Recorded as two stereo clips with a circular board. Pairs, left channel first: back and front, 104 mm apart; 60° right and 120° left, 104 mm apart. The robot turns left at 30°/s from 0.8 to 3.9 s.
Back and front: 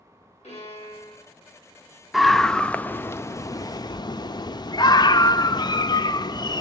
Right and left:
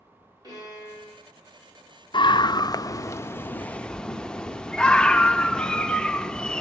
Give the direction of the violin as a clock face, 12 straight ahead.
6 o'clock.